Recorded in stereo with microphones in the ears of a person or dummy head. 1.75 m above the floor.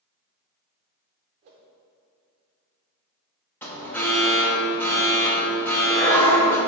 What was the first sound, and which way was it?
A whoosh, 30° right (ahead or behind).